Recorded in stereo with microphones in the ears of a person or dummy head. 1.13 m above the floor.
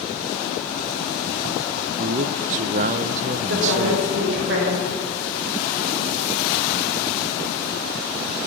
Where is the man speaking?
40° right (ahead or behind), 0.6 m.